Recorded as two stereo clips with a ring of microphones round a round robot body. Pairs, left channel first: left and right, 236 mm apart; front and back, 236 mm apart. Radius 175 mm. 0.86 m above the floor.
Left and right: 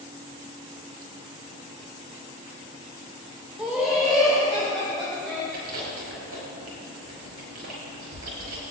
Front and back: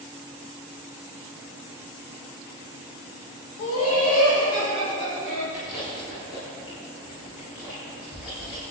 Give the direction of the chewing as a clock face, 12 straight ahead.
2 o'clock.